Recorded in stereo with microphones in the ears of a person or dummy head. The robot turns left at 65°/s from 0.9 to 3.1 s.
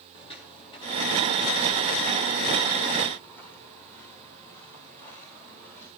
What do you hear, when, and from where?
0.1 s footsteps: 25° left (ahead or behind), 1.8 m; by 5.9 s 10° left (ahead or behind), 7 m